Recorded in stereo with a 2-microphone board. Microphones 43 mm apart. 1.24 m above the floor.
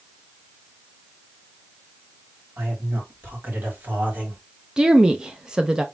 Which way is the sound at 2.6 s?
70° right (ahead or behind).